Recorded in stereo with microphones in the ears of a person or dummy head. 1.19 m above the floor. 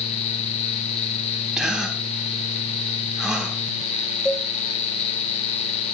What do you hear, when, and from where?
1.6 s a gasp: 10° right (ahead or behind), 3 m
4.2 s a cowbell: 5° left (ahead or behind), 3 m